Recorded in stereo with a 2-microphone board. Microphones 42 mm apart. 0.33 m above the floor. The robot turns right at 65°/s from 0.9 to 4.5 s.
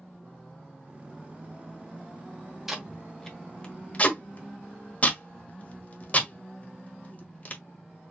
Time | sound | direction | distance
2.7 | tape being pulled | 10° right (ahead or behind) | 1.4 m